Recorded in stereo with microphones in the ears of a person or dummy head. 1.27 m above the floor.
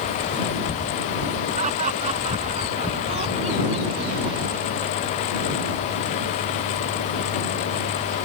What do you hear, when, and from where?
1.6 s laughter: 45° right (ahead or behind); by 5.3 s 30° right (ahead or behind)